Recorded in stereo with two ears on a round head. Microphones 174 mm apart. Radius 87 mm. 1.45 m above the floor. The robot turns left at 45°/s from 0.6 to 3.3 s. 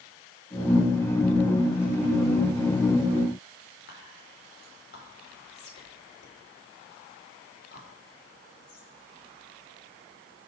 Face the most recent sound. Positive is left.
turn(degrees=55)  # may be behind; listen again after turning